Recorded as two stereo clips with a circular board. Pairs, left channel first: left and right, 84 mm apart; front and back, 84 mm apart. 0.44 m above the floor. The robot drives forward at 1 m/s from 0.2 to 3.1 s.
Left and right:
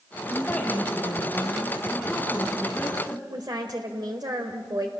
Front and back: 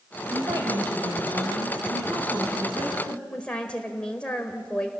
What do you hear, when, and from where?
0.3 s a woman speaking: 165° left, 2.5 m; by 3.2 s 170° left, 5 m
3.3 s a woman speaking: 75° right, 1.5 m